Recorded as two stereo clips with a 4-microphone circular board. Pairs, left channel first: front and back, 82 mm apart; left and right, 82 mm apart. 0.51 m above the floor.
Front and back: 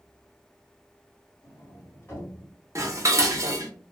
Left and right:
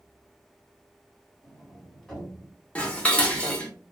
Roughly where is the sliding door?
Ahead.